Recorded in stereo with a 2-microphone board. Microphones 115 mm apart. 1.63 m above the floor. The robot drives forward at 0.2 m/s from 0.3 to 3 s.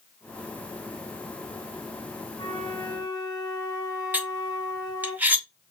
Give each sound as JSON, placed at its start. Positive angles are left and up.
{"t": 2.4, "sound": "a flute", "side_deg": 35, "distance_m": 3.0}
{"t": 4.1, "sound": "cutlery clinking", "side_deg": -15, "distance_m": 0.9}